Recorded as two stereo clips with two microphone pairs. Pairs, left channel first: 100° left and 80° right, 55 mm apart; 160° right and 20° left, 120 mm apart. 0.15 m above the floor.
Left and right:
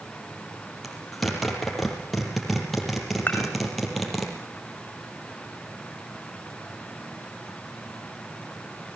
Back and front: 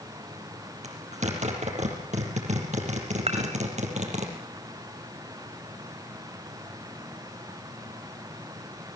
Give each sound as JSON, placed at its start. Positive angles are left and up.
{"t": 0.8, "sound": "a zipper", "azimuth_deg": 15, "distance_m": 5.0}
{"t": 3.3, "sound": "dishes clattering", "azimuth_deg": 45, "distance_m": 6.5}